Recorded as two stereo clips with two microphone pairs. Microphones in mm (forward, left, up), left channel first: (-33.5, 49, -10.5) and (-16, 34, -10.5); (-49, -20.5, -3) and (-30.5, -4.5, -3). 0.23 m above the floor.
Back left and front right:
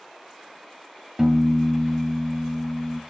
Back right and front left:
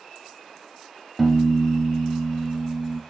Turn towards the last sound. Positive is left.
turn(degrees=-70)